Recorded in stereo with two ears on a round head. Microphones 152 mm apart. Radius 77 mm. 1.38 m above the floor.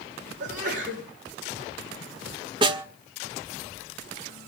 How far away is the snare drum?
About 1.2 m.